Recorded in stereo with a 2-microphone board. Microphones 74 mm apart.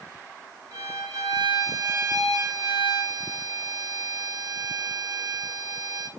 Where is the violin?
55° right (ahead or behind), 4 m.